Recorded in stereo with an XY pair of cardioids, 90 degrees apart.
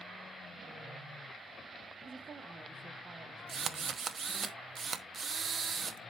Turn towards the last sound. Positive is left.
turn(degrees=-55)